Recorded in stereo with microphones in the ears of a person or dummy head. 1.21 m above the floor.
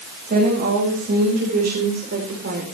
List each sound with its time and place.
0.3 s a woman speaking: 50° right (ahead or behind), 6 m; by 2.6 s 55° right (ahead or behind), 4 m